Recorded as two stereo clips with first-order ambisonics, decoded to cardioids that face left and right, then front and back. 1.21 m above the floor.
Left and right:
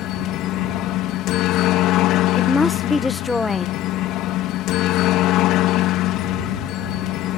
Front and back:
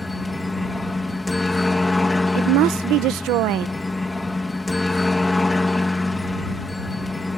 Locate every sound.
0.0 s a helicopter: 75° left
2.4 s a woman speaking: 165° left